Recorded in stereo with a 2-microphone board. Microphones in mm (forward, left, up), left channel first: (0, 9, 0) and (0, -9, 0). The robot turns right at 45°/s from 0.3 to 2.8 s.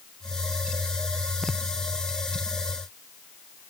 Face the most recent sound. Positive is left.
No sound to turn to.